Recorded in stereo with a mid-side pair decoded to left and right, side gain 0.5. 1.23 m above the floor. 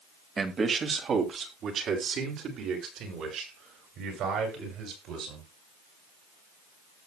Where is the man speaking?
35° right, 2 m; by 5.5 s 75° right, 9 m.